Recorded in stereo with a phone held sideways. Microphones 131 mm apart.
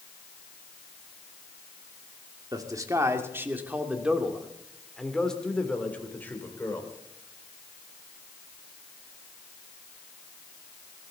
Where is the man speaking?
30° right (ahead or behind), 2 m; by 6.9 s 20° left (ahead or behind), 3 m.